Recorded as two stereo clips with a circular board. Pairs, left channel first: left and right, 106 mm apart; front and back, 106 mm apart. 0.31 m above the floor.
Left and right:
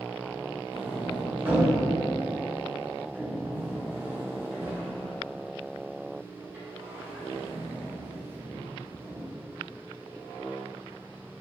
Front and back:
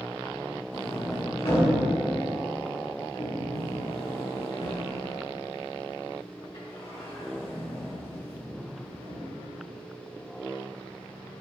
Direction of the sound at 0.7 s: 20° right.